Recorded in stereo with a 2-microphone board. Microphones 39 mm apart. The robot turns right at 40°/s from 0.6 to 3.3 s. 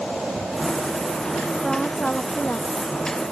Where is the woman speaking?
5° left; by 2.7 s 50° left.